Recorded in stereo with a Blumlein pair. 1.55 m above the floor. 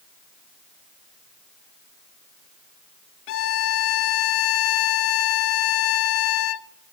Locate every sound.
3.3 s a violin: 45° left, 0.5 m